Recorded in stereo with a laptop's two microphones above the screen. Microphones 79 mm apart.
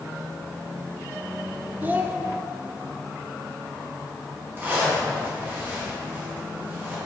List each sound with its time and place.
1.8 s a child speaking: 25° right (ahead or behind), 0.8 m
4.6 s a zipper: 25° right (ahead or behind), 1.5 m